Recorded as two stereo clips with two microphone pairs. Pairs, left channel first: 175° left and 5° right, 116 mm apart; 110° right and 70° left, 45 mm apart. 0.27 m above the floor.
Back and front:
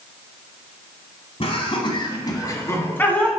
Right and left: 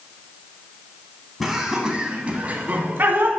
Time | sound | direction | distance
1.4 | laughter | 155° left | 1.7 m